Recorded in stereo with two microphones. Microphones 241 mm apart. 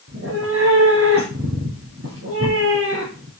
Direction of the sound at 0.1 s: 55° right (ahead or behind).